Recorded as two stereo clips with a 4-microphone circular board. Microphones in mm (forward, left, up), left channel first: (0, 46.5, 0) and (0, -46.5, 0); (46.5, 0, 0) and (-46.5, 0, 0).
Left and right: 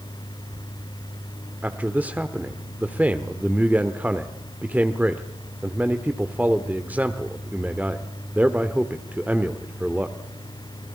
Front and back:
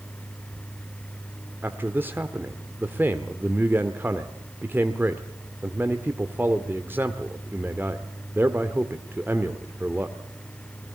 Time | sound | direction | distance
1.6 | a man speaking | 140° right | 1.2 m